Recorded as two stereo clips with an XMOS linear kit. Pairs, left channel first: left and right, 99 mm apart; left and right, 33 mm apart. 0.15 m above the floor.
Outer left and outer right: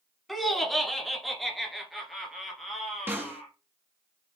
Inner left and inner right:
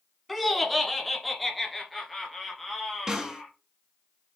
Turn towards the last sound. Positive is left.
turn(degrees=-20)  # may be behind; listen again after turning